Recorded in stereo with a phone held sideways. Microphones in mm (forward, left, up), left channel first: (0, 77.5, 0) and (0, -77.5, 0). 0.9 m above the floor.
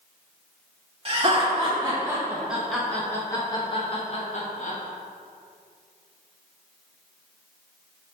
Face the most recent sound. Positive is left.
turn(degrees=55)  # may be behind; listen again after turning